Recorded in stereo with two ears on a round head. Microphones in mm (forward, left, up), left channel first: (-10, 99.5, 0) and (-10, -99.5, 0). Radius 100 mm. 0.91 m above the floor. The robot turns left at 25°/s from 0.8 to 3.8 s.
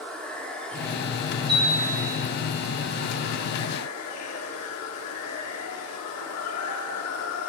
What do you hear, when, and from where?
0.0 s running water: 175° left, 1.8 m; by 7.5 s 100° left, 1.8 m
1.5 s a chime: 20° right (ahead or behind), 4.5 m; by 2.2 s 40° right (ahead or behind), 4.5 m